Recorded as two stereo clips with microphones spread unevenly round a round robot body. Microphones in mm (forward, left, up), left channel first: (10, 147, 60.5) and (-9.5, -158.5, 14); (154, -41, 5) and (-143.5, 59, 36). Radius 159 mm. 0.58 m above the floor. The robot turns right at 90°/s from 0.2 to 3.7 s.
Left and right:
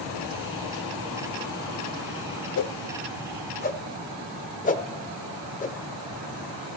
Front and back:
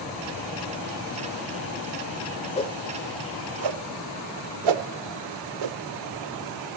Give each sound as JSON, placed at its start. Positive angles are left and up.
{"t": 2.6, "sound": "a whoosh", "azimuth_deg": 50, "distance_m": 0.7}